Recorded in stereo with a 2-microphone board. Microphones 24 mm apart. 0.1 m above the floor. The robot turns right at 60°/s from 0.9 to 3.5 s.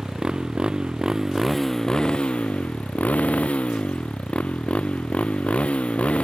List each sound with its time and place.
0.0 s a motorcycle: 40° right; by 6.2 s 115° left